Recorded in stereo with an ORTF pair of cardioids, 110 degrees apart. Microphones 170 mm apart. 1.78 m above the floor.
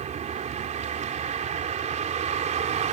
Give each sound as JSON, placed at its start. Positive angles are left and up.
{"t": 0.0, "sound": "a vehicle", "azimuth_deg": -45}